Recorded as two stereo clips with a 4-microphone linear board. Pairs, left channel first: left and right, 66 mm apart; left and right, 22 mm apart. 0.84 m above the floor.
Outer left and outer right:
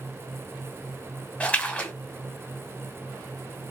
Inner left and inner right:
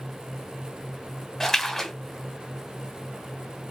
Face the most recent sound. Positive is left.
turn(degrees=20)  # may be behind; listen again after turning